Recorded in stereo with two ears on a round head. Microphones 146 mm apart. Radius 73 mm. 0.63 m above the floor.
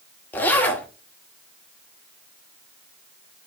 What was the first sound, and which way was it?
A zipper, 10° left (ahead or behind).